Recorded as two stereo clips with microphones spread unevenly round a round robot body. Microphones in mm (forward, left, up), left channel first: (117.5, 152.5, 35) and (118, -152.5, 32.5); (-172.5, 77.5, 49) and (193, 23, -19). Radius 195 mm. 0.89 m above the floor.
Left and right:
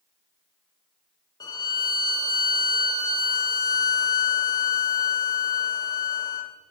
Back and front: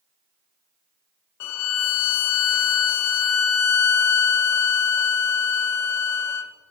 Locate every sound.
1.4 s a violin: 160° left, 0.7 m